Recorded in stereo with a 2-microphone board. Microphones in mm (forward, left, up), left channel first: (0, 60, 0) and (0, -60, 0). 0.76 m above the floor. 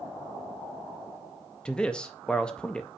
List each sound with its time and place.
1.6 s a man speaking: 10° left (ahead or behind), 0.5 m